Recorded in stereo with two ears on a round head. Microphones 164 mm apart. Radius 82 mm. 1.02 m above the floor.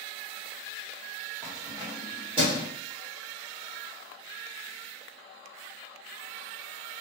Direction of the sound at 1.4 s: 15° right (ahead or behind).